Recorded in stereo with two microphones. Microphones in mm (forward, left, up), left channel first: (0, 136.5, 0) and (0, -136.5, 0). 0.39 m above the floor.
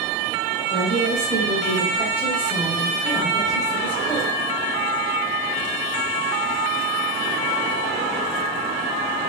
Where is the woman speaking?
35° right (ahead or behind), 1.7 m; by 4.3 s 10° left (ahead or behind), 1.5 m.